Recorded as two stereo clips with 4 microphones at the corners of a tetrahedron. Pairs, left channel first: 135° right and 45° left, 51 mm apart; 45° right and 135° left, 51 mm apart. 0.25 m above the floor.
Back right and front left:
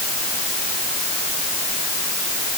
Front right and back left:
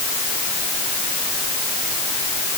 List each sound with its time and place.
Only background noise.